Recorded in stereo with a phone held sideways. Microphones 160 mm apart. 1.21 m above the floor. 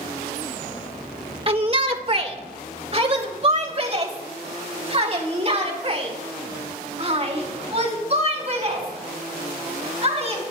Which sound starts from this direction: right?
A shout, at 1.5 s.